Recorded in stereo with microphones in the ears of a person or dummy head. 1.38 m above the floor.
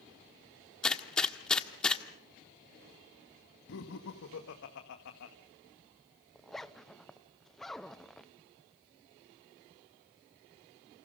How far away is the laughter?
About 1.6 m.